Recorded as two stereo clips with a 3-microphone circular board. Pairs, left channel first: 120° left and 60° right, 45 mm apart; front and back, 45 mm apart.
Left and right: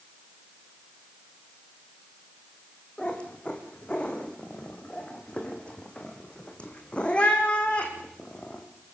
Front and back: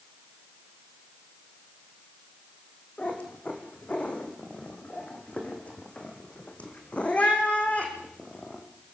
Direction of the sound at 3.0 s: 55° left.